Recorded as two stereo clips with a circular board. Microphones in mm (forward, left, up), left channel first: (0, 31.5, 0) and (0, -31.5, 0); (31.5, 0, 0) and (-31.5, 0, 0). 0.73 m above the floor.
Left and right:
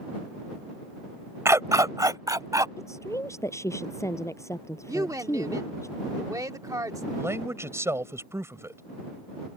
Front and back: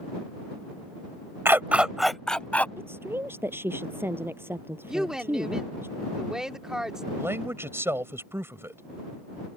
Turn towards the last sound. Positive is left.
turn(degrees=-135)